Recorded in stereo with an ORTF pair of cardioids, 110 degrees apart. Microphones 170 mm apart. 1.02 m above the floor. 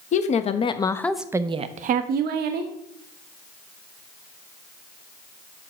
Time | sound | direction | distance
0.1 | a woman speaking | 45° left | 1.1 m